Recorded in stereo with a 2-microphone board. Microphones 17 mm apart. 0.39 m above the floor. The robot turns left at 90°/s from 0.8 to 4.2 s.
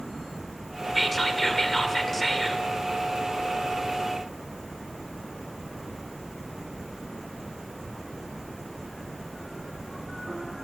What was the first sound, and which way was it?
Whispering, 10° left (ahead or behind).